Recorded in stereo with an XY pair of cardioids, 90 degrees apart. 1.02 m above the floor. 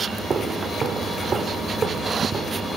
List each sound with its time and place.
0.3 s footsteps: 50° right, 3.5 m